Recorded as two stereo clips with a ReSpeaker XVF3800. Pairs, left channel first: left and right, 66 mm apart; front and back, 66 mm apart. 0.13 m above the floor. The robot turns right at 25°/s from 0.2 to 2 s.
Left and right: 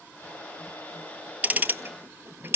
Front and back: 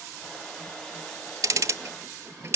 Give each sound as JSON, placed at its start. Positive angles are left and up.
{"t": 1.4, "sound": "ticking", "azimuth_deg": -150, "distance_m": 0.6}